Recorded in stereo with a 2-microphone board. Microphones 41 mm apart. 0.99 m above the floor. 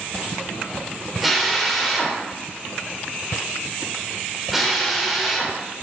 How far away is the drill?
About 4 m.